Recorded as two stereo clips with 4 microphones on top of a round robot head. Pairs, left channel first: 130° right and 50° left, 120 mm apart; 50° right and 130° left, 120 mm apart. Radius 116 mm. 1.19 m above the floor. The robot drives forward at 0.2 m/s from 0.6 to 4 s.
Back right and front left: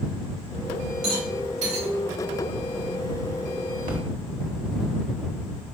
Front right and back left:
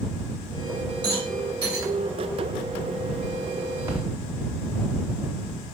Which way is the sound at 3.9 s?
65° left.